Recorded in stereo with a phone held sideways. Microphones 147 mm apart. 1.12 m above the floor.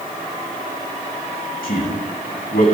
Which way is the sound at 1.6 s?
75° left (ahead or behind).